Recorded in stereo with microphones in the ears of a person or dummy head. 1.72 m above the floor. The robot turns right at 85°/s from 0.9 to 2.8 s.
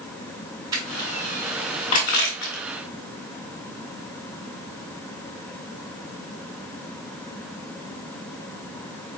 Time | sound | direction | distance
0.7 | crushing | 20° right (ahead or behind) | 2.5 m